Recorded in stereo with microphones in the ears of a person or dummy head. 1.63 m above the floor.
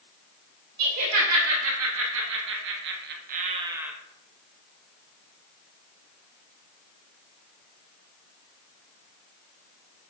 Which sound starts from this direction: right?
Laughter, at 0.8 s.